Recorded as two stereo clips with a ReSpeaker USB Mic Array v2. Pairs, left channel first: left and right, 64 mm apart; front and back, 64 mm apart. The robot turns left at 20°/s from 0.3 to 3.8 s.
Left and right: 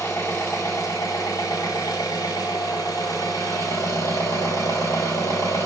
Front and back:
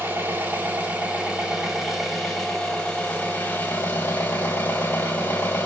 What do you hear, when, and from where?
0.0 s an engine running: 125° left, 1.4 m; by 5.7 s 55° left, 1.4 m